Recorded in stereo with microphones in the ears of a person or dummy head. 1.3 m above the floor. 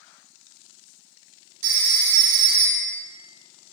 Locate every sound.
1.6 s a phone ringing: 70° right (ahead or behind), 1.2 m